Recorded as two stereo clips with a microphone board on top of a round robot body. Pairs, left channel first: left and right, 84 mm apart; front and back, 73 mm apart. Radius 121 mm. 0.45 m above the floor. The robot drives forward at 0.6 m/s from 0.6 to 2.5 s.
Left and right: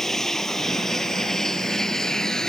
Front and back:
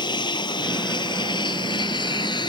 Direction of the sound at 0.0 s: 5° left.